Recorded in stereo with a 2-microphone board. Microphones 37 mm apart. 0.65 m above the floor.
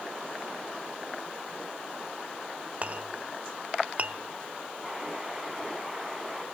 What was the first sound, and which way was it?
A clink, 40° right (ahead or behind).